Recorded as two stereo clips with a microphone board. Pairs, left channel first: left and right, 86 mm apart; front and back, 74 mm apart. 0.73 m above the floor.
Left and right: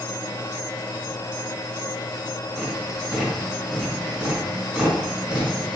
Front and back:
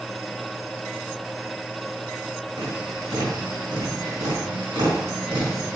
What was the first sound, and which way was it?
Tapping, 175° right.